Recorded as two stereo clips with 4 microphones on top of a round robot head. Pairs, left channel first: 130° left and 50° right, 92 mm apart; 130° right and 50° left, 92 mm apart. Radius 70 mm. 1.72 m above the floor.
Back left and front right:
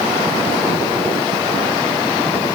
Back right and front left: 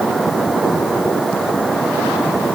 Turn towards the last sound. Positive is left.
No sound to turn to.